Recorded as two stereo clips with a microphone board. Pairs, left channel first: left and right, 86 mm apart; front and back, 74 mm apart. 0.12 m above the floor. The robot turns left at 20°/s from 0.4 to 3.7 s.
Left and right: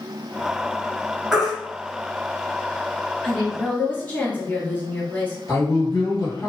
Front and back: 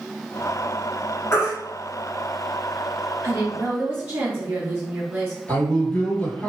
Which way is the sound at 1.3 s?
5° right.